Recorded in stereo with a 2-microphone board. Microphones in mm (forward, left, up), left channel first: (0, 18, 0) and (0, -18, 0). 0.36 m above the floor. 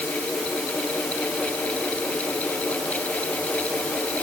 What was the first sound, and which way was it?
Only background noise.